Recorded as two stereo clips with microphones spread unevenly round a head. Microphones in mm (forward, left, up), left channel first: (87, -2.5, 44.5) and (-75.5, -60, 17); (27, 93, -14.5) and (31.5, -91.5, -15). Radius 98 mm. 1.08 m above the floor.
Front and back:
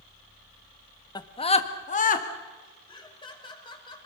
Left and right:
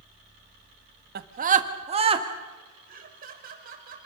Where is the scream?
50° right, 1.4 m; by 2.3 s 25° right, 2.5 m.